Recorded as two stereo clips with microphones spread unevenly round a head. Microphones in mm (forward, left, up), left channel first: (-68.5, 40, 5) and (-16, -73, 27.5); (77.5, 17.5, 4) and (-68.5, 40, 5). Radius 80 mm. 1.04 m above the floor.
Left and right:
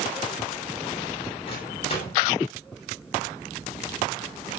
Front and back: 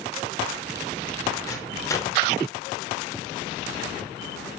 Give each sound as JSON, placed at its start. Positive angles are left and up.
{"t": 1.5, "sound": "a microwave", "azimuth_deg": 60, "distance_m": 3.5}